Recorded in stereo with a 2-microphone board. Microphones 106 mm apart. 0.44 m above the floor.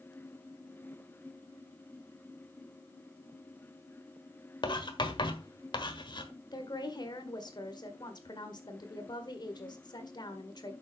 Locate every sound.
4.6 s writing: 50° left (ahead or behind), 1.4 m
6.5 s a woman speaking: 45° left (ahead or behind), 1.6 m